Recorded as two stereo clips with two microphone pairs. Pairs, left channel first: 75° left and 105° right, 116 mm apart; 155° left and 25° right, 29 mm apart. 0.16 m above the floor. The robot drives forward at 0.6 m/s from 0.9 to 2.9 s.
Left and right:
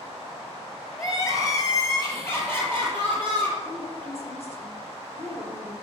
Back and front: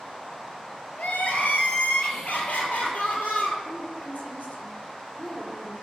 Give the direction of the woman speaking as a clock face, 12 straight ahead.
7 o'clock.